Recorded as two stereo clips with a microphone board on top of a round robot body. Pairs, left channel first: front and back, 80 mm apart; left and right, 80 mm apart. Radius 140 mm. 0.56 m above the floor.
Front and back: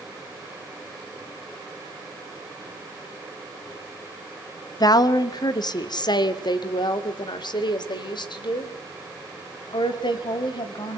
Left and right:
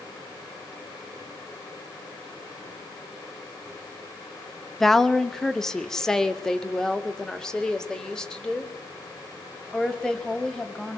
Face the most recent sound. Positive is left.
turn(degrees=10)